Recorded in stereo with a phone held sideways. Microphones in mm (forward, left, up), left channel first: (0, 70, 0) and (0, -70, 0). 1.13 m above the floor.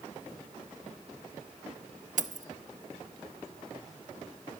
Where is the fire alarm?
No fire alarm in this recording.